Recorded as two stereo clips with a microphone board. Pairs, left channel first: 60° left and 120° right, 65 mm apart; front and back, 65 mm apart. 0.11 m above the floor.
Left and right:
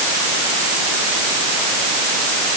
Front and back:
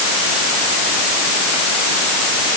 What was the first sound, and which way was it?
Only background noise.